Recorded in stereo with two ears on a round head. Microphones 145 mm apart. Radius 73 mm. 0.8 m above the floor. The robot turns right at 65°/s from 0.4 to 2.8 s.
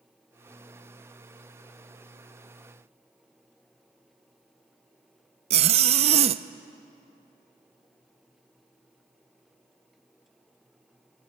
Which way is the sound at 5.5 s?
40° right (ahead or behind).